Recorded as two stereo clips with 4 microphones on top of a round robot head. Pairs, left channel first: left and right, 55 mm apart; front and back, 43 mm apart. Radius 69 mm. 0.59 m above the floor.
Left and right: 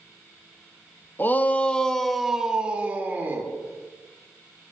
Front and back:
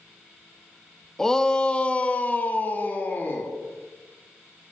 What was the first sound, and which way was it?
A shout, 75° left.